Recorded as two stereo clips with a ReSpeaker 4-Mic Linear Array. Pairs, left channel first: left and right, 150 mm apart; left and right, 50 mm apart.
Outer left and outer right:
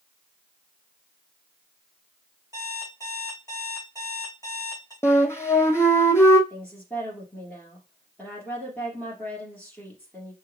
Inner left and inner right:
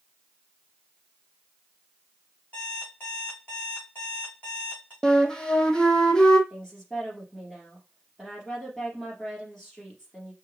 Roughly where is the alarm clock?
Left.